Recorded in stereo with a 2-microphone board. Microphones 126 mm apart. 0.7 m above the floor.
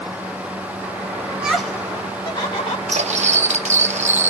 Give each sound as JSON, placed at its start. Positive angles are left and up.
{"t": 1.3, "sound": "laughter", "side_deg": -15, "distance_m": 0.6}
{"t": 2.9, "sound": "cutlery clinking", "side_deg": -65, "distance_m": 0.5}